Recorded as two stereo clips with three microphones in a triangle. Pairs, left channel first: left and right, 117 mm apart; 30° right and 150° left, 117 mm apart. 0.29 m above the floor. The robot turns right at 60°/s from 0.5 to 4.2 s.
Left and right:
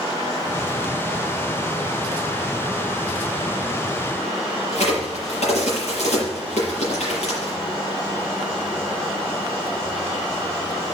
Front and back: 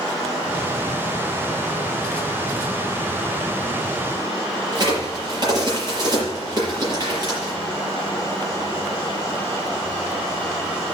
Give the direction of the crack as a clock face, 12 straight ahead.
9 o'clock.